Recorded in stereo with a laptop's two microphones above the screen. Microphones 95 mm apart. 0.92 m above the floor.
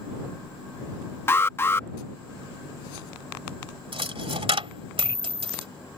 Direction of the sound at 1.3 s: 25° left (ahead or behind).